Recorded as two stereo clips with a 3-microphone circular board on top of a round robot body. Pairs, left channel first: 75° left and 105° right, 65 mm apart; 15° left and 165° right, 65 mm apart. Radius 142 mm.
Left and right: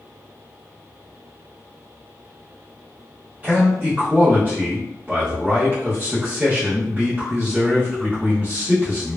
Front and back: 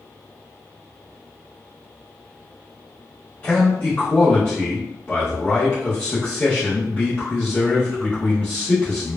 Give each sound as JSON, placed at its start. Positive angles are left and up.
{"t": 3.4, "sound": "a man speaking", "azimuth_deg": -40, "distance_m": 1.6}